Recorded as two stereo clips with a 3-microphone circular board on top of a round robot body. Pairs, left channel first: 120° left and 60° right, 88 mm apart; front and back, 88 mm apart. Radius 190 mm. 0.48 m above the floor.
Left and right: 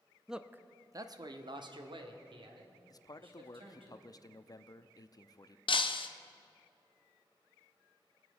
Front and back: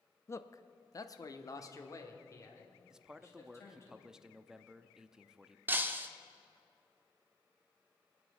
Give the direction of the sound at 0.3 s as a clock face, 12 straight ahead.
11 o'clock.